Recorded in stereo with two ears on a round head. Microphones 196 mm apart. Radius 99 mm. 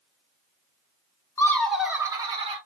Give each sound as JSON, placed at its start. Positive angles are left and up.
{"t": 1.4, "sound": "laughter", "side_deg": 15, "distance_m": 0.8}